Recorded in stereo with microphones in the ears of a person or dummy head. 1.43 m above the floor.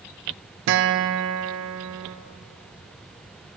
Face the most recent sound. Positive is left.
turn(degrees=-55)  # may be behind; listen again after turning